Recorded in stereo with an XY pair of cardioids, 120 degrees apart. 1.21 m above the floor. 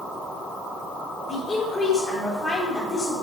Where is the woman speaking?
25° left, 4 m.